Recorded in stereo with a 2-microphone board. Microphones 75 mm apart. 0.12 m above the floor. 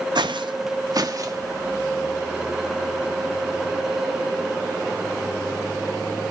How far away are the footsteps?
About 0.5 m.